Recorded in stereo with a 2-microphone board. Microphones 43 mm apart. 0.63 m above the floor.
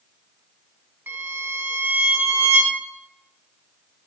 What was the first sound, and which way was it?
A violin, 65° right (ahead or behind).